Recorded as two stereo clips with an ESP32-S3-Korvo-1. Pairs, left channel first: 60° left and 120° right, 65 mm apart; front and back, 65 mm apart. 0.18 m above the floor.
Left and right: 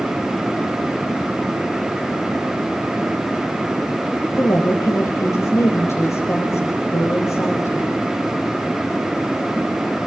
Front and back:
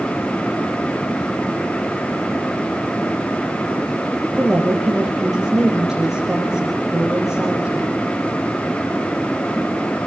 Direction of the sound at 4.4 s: 100° left.